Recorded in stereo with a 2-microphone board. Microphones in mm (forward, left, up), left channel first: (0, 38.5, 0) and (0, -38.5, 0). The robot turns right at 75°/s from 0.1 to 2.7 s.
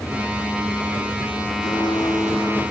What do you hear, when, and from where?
1.6 s a blender: 90° left, 9.5 m; by 2.6 s 165° left, 9.5 m